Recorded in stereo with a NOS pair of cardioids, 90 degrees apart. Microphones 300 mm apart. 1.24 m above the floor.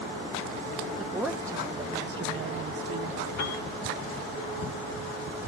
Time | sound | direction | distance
1.0 | a woman speaking | straight ahead | 2.5 m
3.4 | a piano | 65° left | 5 m